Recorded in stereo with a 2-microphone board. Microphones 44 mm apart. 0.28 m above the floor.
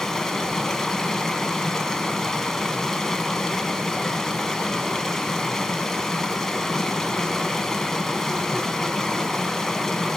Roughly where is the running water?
Centre.